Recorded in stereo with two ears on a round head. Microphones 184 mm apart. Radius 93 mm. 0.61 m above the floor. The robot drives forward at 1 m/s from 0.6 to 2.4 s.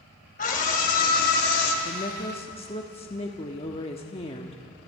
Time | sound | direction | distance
0.4 | a scream | 45° left (ahead or behind) | 4 m
1.9 | a woman speaking | 30° left (ahead or behind) | 1.1 m